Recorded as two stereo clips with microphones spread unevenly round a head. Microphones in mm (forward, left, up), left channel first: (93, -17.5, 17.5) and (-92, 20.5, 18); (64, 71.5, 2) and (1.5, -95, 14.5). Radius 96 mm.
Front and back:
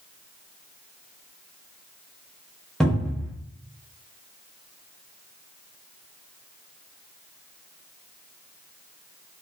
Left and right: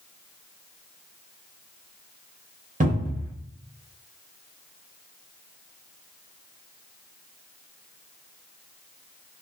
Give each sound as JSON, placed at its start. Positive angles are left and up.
{"t": 2.8, "sound": "a cupboard door", "azimuth_deg": -100, "distance_m": 1.1}